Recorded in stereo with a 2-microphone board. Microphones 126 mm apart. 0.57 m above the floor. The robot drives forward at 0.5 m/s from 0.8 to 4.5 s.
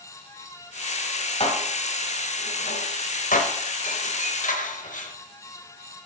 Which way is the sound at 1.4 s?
45° left (ahead or behind).